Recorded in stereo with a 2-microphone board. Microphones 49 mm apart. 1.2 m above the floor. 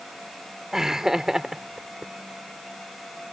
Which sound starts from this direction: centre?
Laughter, at 0.7 s.